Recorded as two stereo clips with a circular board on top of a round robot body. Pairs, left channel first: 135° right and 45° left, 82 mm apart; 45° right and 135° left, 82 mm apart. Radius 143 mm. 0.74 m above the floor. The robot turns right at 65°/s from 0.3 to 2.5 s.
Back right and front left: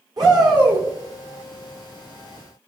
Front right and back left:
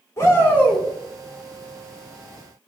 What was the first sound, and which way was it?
A shout, 10° left.